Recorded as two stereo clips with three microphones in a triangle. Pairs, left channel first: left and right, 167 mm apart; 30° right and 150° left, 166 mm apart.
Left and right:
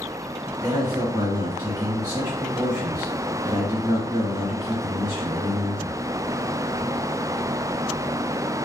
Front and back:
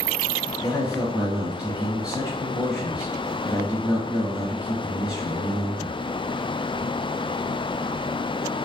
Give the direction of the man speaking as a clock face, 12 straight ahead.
4 o'clock.